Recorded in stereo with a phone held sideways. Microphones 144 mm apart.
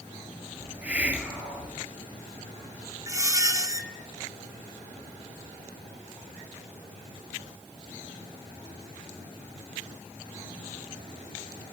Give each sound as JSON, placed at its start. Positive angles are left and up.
{"t": 0.6, "sound": "a hiss", "side_deg": -10, "distance_m": 1.7}
{"t": 3.1, "sound": "a squeak", "side_deg": -25, "distance_m": 0.8}